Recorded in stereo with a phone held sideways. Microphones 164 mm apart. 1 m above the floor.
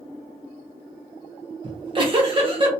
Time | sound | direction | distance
1.6 | a giggle | 35° right (ahead or behind) | 1.0 m